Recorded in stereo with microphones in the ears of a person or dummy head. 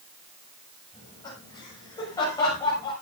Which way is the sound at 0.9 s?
25° left (ahead or behind).